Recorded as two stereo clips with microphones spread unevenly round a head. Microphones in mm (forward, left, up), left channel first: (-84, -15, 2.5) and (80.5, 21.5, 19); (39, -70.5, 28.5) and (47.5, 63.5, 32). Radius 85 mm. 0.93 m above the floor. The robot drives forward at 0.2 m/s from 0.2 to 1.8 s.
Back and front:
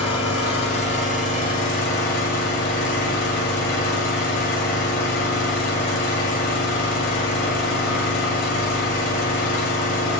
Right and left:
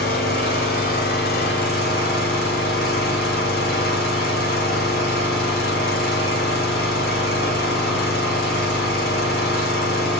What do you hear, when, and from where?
0.0 s an engine running: 105° right, 1.0 m; by 10.2 s 125° right, 1.2 m